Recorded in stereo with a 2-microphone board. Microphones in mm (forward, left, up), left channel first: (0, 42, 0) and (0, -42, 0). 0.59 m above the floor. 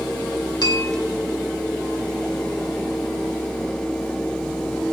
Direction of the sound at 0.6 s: 55° left (ahead or behind).